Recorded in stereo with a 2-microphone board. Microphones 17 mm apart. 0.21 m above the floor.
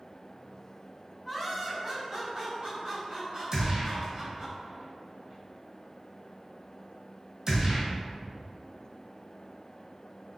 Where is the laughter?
5° left (ahead or behind), 1.3 m; by 4.5 s 65° right (ahead or behind), 3 m.